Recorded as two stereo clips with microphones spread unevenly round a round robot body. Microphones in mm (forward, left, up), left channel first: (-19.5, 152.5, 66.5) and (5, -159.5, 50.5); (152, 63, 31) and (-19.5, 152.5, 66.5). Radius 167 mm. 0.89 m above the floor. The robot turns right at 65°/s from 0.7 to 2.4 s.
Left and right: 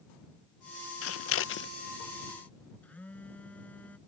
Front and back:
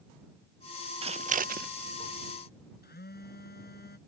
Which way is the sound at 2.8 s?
10° left.